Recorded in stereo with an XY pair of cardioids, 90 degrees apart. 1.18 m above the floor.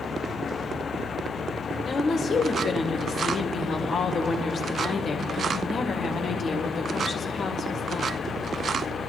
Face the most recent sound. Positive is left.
turn(degrees=60)